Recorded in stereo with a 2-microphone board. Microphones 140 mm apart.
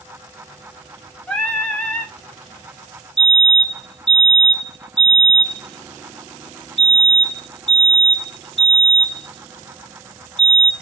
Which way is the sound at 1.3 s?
10° left (ahead or behind).